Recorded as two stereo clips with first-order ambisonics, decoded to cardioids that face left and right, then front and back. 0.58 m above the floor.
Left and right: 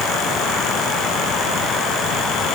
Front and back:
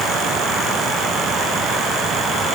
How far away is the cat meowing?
I don't hear a cat meowing.